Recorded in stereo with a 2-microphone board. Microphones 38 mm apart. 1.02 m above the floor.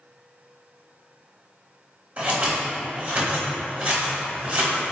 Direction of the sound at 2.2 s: 35° right (ahead or behind).